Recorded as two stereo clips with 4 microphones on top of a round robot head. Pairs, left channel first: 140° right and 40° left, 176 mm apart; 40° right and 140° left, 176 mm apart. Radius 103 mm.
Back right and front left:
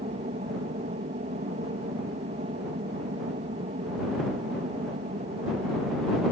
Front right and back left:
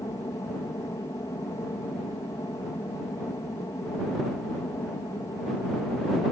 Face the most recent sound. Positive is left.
turn(degrees=25)